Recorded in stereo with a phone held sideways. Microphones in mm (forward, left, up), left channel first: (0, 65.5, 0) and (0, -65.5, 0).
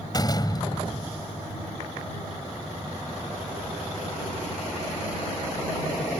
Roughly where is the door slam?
Left.